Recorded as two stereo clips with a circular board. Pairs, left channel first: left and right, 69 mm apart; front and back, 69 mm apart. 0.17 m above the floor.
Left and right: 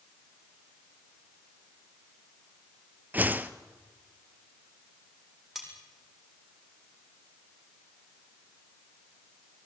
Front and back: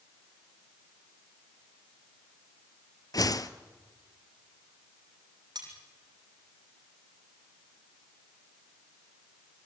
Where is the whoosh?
25° right, 1.0 m.